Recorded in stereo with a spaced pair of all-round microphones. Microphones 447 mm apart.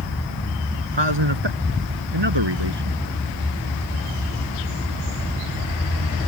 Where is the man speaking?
70° right (ahead or behind); by 3.0 s 65° right (ahead or behind).